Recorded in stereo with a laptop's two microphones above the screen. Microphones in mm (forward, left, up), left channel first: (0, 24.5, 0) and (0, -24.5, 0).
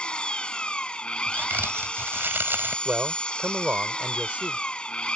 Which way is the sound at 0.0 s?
20° left (ahead or behind).